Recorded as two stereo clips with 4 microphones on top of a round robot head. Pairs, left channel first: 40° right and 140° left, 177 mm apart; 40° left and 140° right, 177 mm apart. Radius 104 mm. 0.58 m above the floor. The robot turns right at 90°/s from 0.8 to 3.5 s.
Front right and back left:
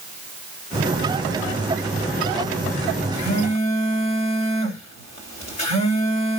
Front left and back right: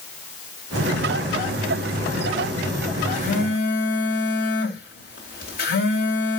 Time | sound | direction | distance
3.1 | a phone buzzing | 20° right | 3 m